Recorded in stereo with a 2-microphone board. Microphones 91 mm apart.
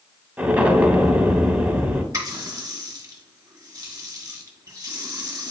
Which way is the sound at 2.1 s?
40° right (ahead or behind).